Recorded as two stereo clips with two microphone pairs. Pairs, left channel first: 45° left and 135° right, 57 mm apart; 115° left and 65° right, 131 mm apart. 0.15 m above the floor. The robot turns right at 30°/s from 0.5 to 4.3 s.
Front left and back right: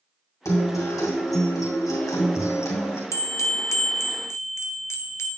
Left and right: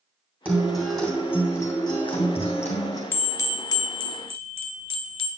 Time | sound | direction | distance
0.5 | a guitar | 15° left | 2 m
3.1 | a bell | 45° left | 0.6 m